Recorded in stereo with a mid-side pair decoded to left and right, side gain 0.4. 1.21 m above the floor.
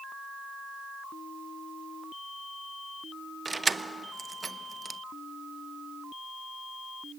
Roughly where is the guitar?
No guitar in this recording.